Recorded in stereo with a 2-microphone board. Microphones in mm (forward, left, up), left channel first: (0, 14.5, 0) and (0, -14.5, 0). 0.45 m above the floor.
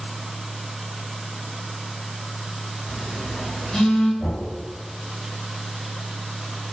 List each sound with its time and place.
2.9 s a phone buzzing: 25° left (ahead or behind), 1.5 m
4.2 s knocking: 35° left (ahead or behind), 1.3 m